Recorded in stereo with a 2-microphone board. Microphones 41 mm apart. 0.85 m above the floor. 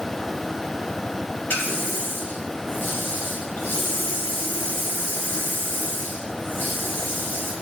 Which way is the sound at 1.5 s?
50° left (ahead or behind).